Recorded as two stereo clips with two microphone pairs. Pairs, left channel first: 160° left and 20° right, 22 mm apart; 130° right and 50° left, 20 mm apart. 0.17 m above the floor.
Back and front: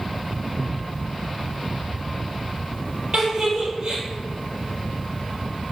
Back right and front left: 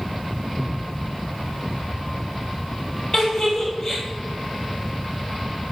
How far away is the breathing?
About 1.3 m.